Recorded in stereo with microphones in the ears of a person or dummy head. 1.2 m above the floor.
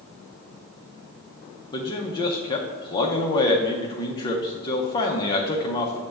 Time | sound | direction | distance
1.7 | a man speaking | 25° left (ahead or behind) | 0.5 m